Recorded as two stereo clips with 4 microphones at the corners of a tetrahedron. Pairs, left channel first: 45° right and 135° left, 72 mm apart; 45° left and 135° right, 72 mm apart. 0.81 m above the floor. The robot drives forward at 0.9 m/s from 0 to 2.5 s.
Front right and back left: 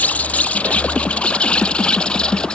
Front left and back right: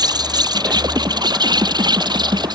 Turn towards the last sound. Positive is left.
turn(degrees=-125)